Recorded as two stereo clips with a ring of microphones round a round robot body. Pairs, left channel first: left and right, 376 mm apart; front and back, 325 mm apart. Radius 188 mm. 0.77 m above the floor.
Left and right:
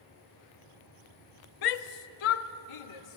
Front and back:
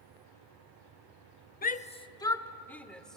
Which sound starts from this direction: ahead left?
A shout, at 1.6 s.